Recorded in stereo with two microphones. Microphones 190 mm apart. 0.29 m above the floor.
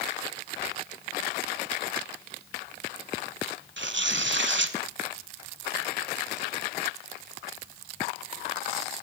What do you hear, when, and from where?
3.8 s tearing paper: 75° right (ahead or behind), 0.6 m